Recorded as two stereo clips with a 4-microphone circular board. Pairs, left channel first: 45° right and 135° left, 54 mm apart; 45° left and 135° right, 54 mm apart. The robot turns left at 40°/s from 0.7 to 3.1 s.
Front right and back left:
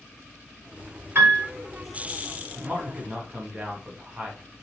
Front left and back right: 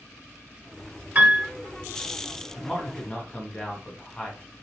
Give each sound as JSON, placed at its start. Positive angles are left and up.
{"t": 1.1, "sound": "a piano", "azimuth_deg": 175, "distance_m": 1.0}
{"t": 2.6, "sound": "a man speaking", "azimuth_deg": 120, "distance_m": 1.3}